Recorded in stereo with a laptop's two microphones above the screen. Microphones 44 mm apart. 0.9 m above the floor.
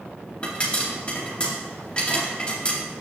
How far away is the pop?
About 2 m.